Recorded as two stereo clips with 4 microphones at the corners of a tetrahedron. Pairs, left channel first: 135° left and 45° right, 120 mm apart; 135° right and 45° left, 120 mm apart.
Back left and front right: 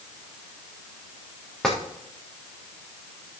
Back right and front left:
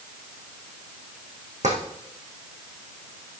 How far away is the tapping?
About 4 m.